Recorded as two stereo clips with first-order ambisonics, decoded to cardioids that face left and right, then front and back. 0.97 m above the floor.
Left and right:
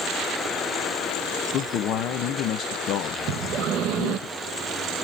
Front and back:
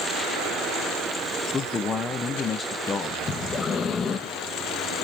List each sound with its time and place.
1.5 s a man speaking: 70° left, 0.6 m
3.3 s breathing: 65° right, 0.7 m